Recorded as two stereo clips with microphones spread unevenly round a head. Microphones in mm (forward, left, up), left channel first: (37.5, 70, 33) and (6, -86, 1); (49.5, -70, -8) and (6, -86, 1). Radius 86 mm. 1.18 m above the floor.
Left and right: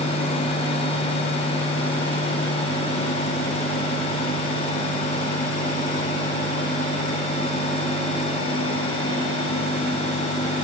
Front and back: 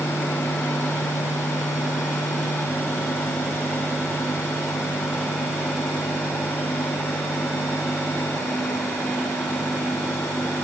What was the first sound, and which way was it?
Only background noise.